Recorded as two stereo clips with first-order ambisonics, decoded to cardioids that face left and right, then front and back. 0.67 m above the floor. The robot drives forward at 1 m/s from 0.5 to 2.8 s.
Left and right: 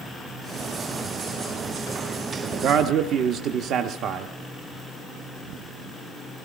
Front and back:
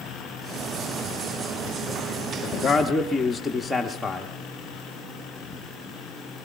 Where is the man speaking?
45° right, 0.8 m; by 4.3 s 85° right, 0.7 m.